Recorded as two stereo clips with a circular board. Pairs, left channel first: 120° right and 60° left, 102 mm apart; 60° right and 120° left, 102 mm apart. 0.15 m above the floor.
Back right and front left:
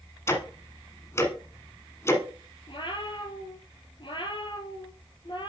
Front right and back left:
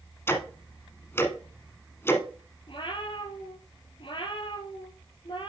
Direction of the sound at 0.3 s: 95° right.